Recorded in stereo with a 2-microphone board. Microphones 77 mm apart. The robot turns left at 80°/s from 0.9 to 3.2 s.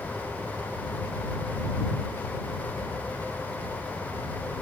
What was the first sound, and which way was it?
Only background noise.